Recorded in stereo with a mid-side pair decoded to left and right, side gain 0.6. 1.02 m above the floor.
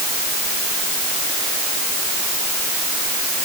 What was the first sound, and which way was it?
Only background noise.